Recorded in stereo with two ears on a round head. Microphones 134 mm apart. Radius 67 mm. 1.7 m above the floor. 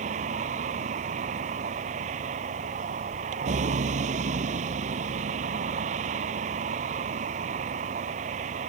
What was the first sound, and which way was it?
A vehicle, 50° right (ahead or behind).